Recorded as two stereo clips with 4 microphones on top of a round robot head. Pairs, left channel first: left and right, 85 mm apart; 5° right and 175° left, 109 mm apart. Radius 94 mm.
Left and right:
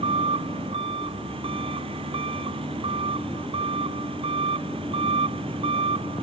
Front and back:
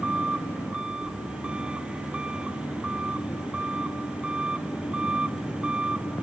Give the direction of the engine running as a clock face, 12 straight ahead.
3 o'clock.